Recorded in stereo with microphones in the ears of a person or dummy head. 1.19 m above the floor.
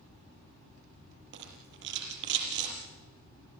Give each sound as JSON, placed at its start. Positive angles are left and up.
{"t": 1.3, "sound": "a rattle", "side_deg": -60, "distance_m": 6.5}